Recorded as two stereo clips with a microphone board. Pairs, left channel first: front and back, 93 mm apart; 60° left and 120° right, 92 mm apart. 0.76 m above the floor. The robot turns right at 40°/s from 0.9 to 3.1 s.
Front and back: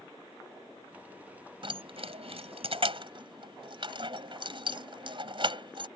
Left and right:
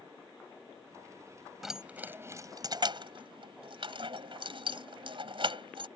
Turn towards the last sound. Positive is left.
turn(degrees=-150)